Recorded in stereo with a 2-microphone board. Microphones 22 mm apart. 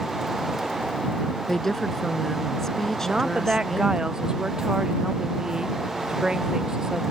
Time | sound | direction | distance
1.5 | a woman speaking | 20° left (ahead or behind) | ?
3.0 | a woman speaking | 40° right (ahead or behind) | ?